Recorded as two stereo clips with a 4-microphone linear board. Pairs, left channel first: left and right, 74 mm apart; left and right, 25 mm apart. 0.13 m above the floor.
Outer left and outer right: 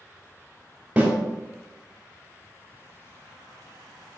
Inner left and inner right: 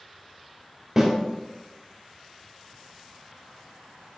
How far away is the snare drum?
About 2.5 m.